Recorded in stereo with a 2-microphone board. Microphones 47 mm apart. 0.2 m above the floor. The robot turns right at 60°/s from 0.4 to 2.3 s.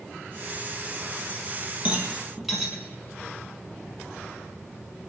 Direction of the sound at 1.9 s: 30° right (ahead or behind).